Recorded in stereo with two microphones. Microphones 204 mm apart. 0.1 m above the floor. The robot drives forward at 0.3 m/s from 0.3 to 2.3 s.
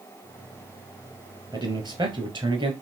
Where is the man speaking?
20° right (ahead or behind), 1.7 m; by 2.7 s 25° right (ahead or behind), 1.6 m.